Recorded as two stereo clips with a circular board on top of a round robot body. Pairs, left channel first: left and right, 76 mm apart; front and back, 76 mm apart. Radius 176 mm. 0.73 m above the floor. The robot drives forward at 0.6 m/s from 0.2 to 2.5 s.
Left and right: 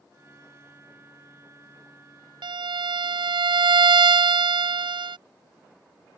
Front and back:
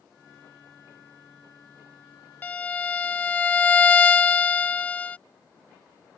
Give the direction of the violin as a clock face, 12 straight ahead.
2 o'clock.